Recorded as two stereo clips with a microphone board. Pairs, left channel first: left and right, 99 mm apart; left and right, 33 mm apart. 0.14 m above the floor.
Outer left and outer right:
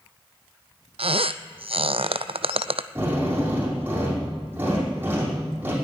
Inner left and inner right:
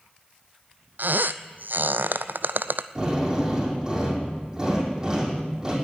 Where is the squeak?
75° right (ahead or behind), 0.5 m.